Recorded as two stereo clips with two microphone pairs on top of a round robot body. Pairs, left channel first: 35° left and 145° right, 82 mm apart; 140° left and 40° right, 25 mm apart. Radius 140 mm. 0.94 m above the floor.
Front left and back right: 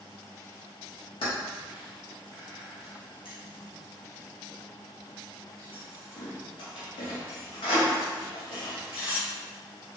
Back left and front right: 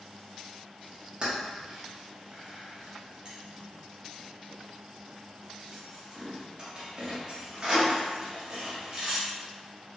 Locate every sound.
1.2 s keys jangling: 20° left, 0.8 m